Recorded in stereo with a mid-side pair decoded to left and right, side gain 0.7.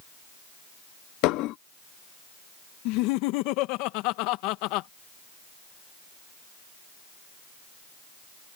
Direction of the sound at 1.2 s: 65° left.